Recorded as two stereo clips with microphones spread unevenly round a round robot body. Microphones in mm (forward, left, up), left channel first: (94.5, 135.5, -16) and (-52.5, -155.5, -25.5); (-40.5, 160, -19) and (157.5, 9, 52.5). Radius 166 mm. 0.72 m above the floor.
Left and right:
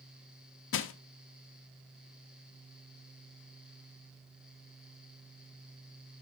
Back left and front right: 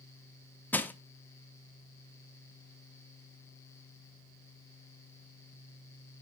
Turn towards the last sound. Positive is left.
turn(degrees=90)